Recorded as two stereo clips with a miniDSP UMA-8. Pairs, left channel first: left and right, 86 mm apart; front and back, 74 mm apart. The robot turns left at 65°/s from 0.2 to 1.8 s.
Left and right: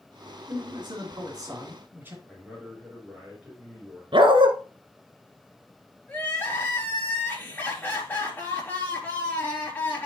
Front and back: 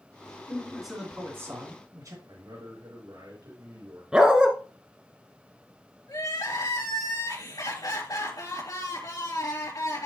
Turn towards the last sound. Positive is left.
turn(degrees=25)